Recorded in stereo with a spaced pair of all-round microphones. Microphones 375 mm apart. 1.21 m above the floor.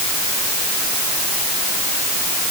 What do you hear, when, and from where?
Only background noise.